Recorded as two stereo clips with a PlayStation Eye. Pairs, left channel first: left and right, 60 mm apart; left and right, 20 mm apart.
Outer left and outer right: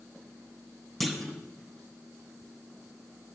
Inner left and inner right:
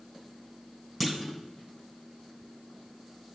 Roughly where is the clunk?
Centre.